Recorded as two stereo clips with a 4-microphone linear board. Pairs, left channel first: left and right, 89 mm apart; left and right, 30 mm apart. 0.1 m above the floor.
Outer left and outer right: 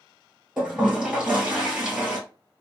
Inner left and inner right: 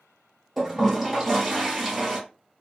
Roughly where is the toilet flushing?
Centre.